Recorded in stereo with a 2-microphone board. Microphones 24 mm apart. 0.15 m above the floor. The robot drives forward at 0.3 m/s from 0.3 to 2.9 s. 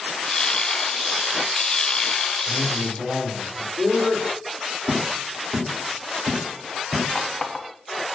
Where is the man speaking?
60° right (ahead or behind), 3.5 m.